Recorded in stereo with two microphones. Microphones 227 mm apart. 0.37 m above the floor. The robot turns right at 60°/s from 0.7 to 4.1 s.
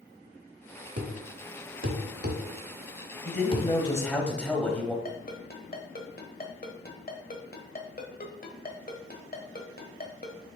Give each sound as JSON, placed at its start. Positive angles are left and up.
{"t": 1.0, "sound": "a thud", "side_deg": -50, "distance_m": 1.1}
{"t": 3.2, "sound": "a man speaking", "azimuth_deg": 120, "distance_m": 1.5}
{"t": 5.0, "sound": "a ringtone", "side_deg": 40, "distance_m": 1.2}